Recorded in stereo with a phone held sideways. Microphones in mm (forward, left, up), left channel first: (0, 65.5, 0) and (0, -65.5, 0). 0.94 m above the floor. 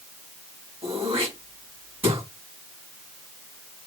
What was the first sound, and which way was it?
Throat clearing, 45° right (ahead or behind).